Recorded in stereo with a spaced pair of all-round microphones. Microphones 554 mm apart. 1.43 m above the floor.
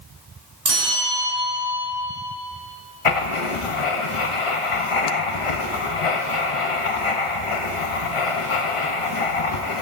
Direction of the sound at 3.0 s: 65° left (ahead or behind).